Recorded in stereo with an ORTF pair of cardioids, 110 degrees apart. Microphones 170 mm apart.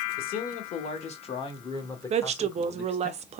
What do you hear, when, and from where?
0.2 s a man speaking: 60° left, 1.3 m; by 3.1 s 5° left, 1.8 m
2.1 s a woman speaking: 40° right, 0.5 m